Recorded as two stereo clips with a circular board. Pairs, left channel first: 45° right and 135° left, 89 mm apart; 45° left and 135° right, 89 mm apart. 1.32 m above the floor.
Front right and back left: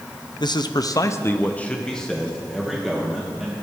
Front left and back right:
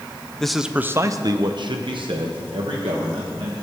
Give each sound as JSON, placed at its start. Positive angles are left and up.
{"t": 0.4, "sound": "a man speaking", "azimuth_deg": -35, "distance_m": 0.6}